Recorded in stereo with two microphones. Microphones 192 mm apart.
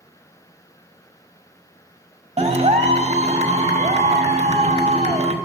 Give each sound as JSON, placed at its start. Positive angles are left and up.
{"t": 2.4, "sound": "a clap", "side_deg": -35, "distance_m": 0.9}